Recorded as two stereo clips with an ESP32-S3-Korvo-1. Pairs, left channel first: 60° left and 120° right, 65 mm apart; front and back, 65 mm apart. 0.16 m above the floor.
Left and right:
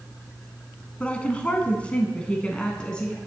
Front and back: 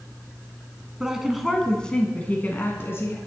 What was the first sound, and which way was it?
A woman speaking, 110° left.